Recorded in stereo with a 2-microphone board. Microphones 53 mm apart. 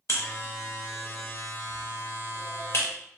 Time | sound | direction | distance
0.1 | a buzzer | 60° left (ahead or behind) | 0.5 m